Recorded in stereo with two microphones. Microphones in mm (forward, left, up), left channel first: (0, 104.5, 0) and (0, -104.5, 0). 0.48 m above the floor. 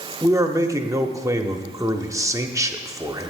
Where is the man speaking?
15° right (ahead or behind), 0.7 m.